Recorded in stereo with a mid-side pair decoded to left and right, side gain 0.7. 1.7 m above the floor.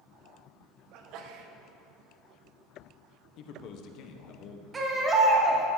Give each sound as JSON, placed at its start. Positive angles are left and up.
{"t": 0.9, "sound": "a sneeze", "azimuth_deg": -60, "distance_m": 1.3}
{"t": 3.4, "sound": "a man speaking", "azimuth_deg": 55, "distance_m": 1.3}
{"t": 4.7, "sound": "a baby crying", "azimuth_deg": -20, "distance_m": 2.0}